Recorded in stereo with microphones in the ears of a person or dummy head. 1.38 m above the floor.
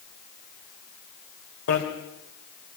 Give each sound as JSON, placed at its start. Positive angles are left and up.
{"t": 1.7, "sound": "a bicycle bell", "side_deg": 80, "distance_m": 3.5}